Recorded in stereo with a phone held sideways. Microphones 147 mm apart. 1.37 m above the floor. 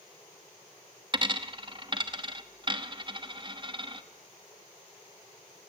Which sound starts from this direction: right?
A dropped coin, at 1.1 s.